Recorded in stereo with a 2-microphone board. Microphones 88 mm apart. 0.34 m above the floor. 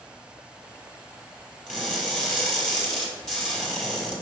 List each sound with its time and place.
1.7 s crushing: 5° right (ahead or behind), 4 m